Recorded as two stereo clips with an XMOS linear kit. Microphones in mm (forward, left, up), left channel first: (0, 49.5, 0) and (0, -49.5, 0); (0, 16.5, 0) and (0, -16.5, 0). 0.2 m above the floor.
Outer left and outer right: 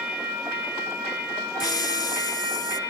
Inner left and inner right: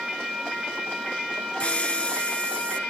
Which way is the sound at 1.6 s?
40° left (ahead or behind).